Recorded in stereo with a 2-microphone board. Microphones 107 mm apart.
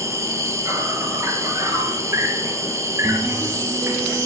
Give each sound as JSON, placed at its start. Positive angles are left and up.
{"t": 0.0, "sound": "an insect", "side_deg": -25, "distance_m": 3.5}